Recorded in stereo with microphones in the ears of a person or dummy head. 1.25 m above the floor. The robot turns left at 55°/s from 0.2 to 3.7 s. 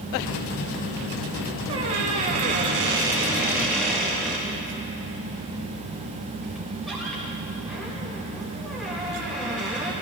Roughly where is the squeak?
Right.